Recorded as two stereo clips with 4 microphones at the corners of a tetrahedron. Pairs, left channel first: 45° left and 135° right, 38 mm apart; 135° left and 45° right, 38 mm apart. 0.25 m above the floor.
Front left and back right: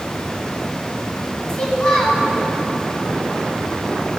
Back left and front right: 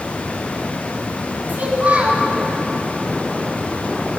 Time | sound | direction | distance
1.5 | a child speaking | 20° right | 1.3 m